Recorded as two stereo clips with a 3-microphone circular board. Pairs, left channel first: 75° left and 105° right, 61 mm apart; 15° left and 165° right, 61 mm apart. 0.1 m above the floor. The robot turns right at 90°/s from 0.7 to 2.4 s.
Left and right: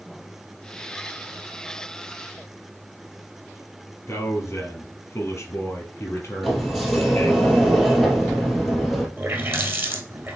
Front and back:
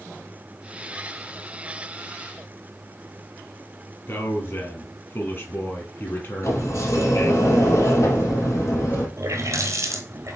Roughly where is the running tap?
Behind right.